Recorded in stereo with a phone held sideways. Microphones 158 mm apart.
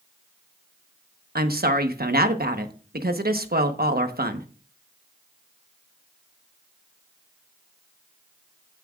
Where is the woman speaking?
75° right (ahead or behind), 1.1 m.